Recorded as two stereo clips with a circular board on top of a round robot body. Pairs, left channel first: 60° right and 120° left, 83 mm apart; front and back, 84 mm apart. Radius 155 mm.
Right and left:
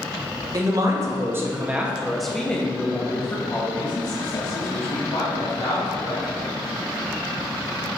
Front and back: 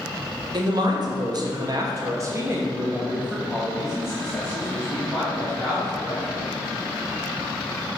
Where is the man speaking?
155° left, 1.4 m; by 6.4 s 75° right, 2.5 m.